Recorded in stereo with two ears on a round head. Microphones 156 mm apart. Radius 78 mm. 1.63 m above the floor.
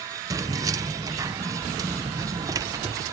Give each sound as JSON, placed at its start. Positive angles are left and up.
{"t": 0.3, "sound": "keys jangling", "side_deg": -20}